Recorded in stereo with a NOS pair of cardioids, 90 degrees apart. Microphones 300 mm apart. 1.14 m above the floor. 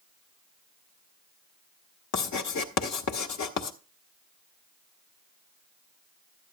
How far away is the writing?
About 1.4 m.